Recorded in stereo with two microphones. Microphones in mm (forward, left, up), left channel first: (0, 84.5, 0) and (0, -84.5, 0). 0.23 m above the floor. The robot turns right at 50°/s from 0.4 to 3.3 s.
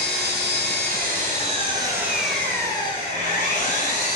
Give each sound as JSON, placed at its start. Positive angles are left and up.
{"t": 0.0, "sound": "an engine running", "azimuth_deg": -95, "distance_m": 1.1}